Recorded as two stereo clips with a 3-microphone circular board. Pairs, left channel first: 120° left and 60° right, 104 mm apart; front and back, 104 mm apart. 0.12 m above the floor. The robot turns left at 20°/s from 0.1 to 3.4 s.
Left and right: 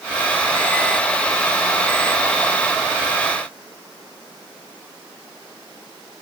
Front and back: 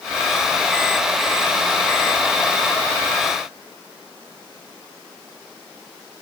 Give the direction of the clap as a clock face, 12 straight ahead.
I don't hear a clap.